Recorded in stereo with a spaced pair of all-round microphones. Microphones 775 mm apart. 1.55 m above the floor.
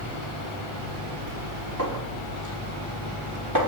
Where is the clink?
25° right (ahead or behind), 3 m.